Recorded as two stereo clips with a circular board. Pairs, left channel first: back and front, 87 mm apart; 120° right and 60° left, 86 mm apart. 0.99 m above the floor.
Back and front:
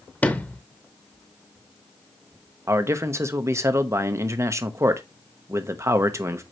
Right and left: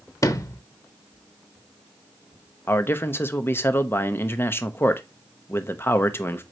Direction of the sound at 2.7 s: 55° right.